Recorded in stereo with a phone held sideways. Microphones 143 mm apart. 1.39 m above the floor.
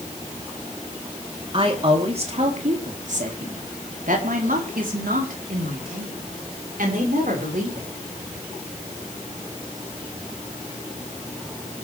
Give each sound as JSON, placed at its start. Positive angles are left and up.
{"t": 1.5, "sound": "a woman speaking", "side_deg": -40, "distance_m": 3.5}